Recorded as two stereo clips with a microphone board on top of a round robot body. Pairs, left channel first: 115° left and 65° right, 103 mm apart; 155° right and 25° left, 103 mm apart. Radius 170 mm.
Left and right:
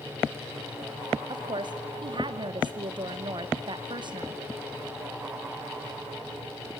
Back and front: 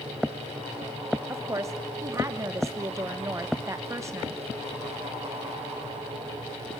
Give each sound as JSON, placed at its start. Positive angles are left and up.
{"t": 1.3, "sound": "a woman speaking", "azimuth_deg": -35, "distance_m": 1.3}